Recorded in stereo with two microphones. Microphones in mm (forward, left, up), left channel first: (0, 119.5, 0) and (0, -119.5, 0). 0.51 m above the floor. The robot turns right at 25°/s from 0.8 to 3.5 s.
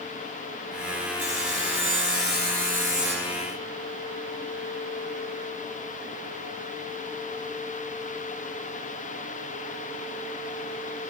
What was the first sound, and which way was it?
Sawing, 75° right.